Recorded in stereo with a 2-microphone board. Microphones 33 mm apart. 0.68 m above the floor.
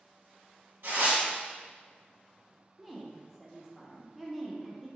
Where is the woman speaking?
5° right (ahead or behind), 0.8 m.